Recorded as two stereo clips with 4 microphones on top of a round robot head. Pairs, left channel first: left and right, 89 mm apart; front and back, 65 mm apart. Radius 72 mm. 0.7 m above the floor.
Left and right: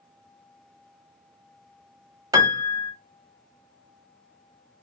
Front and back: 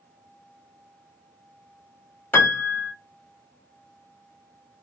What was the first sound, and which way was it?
A piano, 55° right.